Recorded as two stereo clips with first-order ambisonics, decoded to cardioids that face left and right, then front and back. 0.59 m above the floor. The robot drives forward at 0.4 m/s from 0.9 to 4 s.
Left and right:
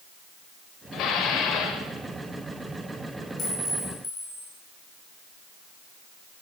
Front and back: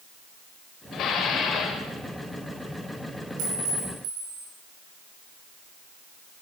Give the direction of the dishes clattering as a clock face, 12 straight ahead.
11 o'clock.